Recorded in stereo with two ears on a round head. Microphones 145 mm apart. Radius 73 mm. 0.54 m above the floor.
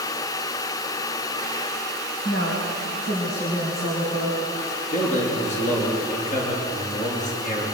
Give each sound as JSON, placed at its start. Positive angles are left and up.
{"t": 2.2, "sound": "a woman speaking", "side_deg": 75, "distance_m": 4.0}
{"t": 4.9, "sound": "a man speaking", "side_deg": 50, "distance_m": 7.5}